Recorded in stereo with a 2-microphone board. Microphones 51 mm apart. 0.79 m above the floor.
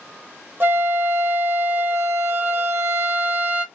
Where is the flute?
45° right (ahead or behind), 1.0 m.